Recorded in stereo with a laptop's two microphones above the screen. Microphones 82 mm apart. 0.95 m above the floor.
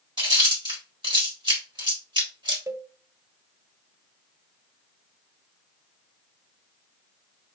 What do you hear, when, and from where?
0.2 s chewing: 80° right, 1.4 m
2.7 s a cowbell: 40° right (ahead or behind), 0.6 m